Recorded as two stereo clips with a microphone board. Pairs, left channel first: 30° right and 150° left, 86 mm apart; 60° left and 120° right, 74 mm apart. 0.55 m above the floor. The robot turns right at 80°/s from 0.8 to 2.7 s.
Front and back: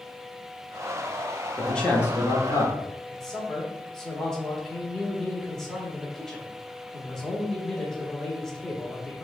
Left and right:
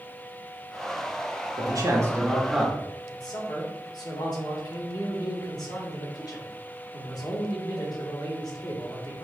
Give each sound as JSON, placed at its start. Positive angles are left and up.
{"t": 1.6, "sound": "a man speaking", "azimuth_deg": -120, "distance_m": 1.0}
{"t": 3.1, "sound": "a man speaking", "azimuth_deg": 55, "distance_m": 1.2}